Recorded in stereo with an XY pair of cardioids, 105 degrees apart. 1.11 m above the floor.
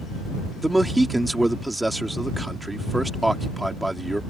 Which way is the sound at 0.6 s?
15° right.